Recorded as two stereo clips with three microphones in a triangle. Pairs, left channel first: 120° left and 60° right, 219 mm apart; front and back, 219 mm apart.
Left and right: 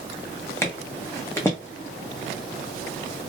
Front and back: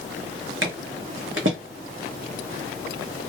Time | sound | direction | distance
0.6 | footsteps | 160° right | 0.8 m